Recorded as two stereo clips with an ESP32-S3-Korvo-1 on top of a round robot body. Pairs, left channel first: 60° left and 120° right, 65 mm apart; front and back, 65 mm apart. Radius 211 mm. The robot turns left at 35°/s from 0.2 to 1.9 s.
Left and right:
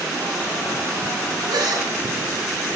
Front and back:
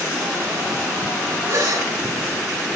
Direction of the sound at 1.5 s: 135° right.